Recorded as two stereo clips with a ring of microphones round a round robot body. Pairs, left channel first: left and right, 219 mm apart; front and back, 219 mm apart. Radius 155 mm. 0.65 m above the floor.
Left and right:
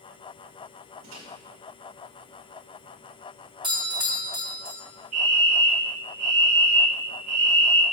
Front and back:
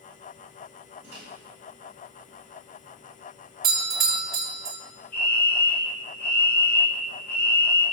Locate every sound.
1.0 s a microwave: 100° right, 2 m
3.6 s a doorbell: 155° right, 1.3 m
5.1 s a fire alarm: 80° right, 2.0 m